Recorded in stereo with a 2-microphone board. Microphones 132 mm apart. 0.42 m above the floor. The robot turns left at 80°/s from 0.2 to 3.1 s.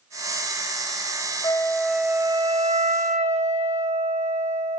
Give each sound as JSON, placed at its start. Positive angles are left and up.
{"t": 1.4, "sound": "a flute", "azimuth_deg": 35, "distance_m": 1.6}